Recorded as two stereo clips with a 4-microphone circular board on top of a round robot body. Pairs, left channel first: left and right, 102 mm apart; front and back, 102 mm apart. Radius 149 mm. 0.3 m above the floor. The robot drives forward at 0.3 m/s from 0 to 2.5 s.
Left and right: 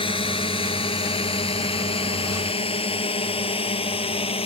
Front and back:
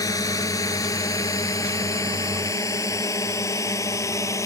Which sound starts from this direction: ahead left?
A drone, at 0.0 s.